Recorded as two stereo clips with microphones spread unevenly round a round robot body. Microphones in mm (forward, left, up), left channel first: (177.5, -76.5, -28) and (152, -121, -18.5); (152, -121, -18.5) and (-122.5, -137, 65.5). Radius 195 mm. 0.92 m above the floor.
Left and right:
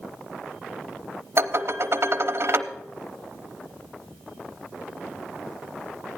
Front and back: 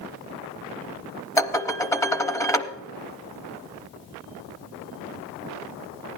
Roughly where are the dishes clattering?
Right.